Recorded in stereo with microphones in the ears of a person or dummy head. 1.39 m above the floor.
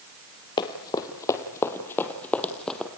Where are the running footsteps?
25° left (ahead or behind), 2 m; by 2.9 s 5° left (ahead or behind), 2.5 m.